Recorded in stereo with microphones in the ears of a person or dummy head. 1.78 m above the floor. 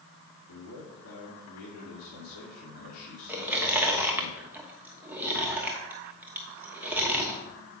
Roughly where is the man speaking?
Left.